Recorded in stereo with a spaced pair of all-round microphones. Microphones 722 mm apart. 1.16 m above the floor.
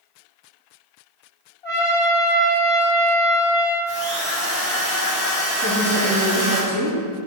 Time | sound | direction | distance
1.6 | a trumpet | 55° left (ahead or behind) | 1.8 m
3.9 | a drill | 15° left (ahead or behind) | 2.5 m
5.6 | a woman speaking | 15° right (ahead or behind) | 2 m